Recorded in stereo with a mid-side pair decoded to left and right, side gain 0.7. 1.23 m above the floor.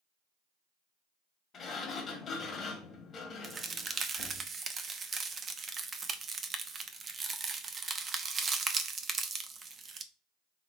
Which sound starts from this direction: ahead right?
A crack, at 3.4 s.